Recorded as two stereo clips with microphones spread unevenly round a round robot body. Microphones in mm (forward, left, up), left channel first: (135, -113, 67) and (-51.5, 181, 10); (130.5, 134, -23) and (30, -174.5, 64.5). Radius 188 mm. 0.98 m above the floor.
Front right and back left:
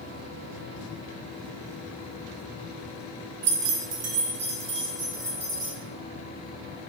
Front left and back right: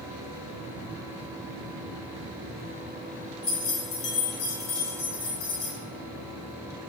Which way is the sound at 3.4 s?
140° left.